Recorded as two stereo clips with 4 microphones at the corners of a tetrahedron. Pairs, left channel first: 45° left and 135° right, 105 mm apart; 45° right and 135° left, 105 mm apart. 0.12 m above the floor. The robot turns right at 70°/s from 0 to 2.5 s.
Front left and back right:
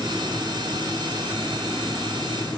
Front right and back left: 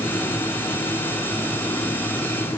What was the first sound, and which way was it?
Only background noise.